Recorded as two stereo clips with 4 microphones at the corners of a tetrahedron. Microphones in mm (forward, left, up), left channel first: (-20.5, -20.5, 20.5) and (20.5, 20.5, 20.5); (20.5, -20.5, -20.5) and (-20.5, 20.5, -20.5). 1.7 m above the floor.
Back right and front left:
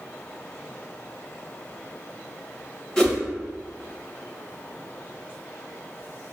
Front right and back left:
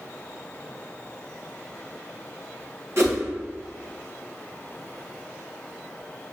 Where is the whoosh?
160° left, 1.2 m.